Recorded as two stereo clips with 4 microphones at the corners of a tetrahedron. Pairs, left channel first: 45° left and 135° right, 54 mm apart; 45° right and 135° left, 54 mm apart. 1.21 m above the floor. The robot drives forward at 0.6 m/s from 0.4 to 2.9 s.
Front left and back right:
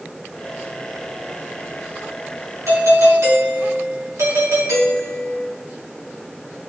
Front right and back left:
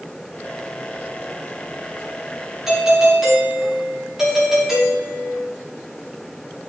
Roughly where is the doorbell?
Behind right.